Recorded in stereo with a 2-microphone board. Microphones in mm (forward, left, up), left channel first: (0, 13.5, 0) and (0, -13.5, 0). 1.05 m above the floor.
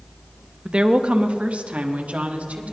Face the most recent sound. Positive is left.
turn(degrees=-60)  # may be behind; listen again after turning